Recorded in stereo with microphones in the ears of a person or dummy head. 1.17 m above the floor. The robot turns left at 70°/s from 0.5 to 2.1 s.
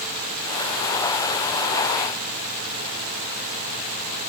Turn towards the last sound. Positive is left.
No sound to turn to.